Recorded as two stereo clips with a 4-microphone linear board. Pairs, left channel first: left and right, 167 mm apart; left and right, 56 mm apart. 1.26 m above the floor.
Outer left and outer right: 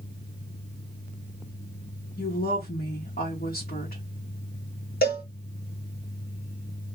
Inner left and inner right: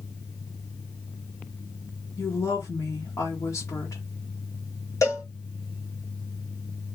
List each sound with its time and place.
2.2 s a woman speaking: 65° left (ahead or behind), 1.0 m
5.0 s a cowbell: 65° left (ahead or behind), 0.9 m